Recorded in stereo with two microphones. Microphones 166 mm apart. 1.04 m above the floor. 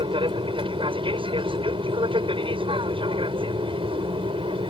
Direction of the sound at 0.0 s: 30° right (ahead or behind).